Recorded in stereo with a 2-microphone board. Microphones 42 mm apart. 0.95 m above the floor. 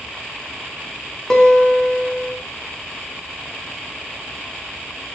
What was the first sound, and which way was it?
A guitar, 15° left (ahead or behind).